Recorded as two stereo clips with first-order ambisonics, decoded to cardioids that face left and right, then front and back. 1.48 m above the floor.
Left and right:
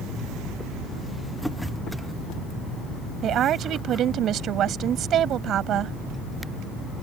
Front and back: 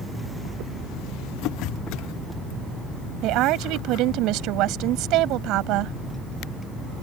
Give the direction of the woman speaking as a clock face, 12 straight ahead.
5 o'clock.